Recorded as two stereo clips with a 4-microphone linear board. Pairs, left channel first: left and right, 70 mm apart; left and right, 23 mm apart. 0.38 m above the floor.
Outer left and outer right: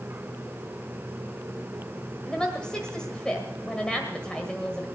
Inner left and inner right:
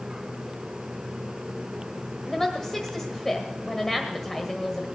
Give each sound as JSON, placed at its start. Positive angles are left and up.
{"t": 2.3, "sound": "a woman speaking", "side_deg": 10, "distance_m": 1.6}